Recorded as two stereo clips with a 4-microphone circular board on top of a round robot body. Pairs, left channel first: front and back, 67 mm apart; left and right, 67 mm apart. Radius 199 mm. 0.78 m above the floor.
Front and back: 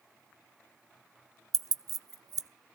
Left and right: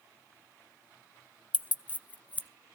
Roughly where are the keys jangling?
Behind left.